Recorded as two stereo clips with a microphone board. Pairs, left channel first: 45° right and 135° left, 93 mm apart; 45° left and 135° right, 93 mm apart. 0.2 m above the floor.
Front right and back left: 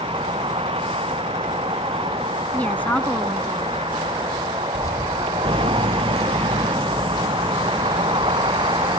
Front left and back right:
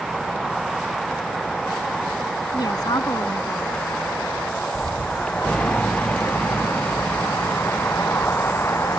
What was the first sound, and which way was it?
A vehicle, 135° left.